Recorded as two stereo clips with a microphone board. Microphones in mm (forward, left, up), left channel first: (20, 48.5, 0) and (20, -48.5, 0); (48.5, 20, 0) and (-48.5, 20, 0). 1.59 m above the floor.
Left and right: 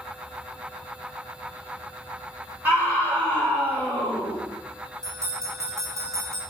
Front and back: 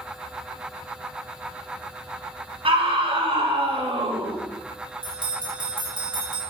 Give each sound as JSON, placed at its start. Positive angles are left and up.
{"t": 2.6, "sound": "a scream", "azimuth_deg": -155, "distance_m": 4.0}
{"t": 5.0, "sound": "a bell", "azimuth_deg": -145, "distance_m": 5.5}